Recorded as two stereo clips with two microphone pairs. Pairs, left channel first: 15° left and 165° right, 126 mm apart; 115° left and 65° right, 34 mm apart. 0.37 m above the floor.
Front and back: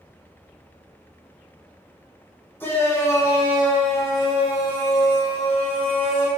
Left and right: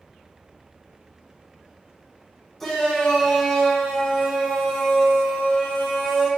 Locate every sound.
2.6 s a shout: 50° left, 1.4 m; by 6.3 s 35° left, 3 m